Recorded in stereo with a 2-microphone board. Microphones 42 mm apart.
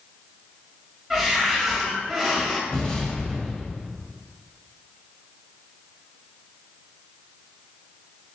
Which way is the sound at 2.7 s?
15° left (ahead or behind).